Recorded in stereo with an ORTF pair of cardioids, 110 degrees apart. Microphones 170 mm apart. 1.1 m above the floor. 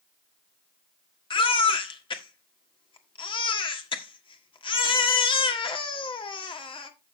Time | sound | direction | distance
1.3 | a baby crying | 30° left | 1.6 m